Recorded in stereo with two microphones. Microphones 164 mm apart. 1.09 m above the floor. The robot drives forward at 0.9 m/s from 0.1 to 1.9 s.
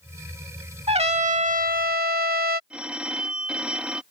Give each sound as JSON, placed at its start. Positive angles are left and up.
{"t": 0.9, "sound": "a trumpet", "side_deg": -40}
{"t": 2.7, "sound": "a phone ringing", "side_deg": -5}